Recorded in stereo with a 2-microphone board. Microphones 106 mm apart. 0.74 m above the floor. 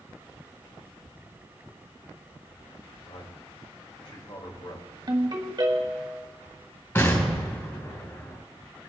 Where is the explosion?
25° left (ahead or behind), 3.5 m.